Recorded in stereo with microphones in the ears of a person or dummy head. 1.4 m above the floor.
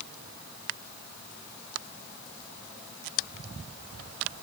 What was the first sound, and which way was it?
Only background noise.